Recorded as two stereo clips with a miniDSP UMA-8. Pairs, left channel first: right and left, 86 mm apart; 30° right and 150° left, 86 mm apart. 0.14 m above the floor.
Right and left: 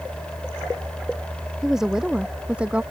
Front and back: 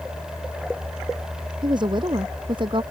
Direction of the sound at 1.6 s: 175° left.